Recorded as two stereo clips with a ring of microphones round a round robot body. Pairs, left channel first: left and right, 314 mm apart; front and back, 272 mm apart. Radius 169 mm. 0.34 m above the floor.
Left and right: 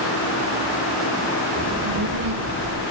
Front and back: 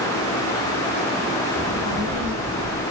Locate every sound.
1.6 s a child speaking: 125° right, 5.5 m